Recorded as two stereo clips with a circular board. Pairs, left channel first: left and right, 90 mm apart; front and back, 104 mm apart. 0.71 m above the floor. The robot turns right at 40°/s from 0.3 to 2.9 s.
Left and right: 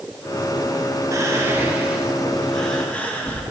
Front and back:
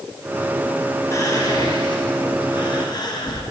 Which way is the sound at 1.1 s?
50° right.